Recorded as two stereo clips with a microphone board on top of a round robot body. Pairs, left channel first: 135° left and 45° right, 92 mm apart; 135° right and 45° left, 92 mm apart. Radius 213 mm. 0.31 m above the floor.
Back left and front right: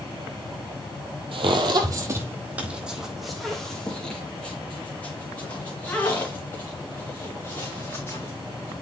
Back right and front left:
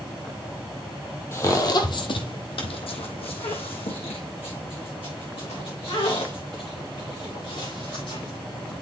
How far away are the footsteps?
About 1.0 m.